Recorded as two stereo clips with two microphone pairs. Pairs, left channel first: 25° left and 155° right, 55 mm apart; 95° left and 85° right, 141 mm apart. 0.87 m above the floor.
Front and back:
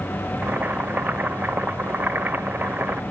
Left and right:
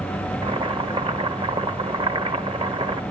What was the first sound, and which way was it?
Boiling, 110° right.